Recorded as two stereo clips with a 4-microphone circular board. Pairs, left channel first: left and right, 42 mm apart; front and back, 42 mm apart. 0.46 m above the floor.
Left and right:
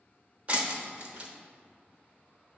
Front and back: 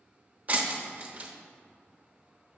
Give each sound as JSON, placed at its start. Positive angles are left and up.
{"t": 0.5, "sound": "breaking glass", "azimuth_deg": -135, "distance_m": 0.7}